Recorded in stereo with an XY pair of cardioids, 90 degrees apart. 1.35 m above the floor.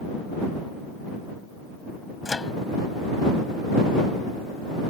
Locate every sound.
2.2 s a microwave: 25° left